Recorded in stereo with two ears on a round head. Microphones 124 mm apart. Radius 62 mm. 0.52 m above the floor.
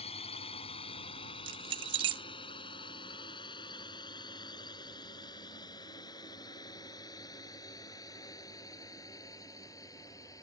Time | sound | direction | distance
0.0 | a drone | 45° left (ahead or behind) | ?
1.5 | keys jangling | 35° right (ahead or behind) | ?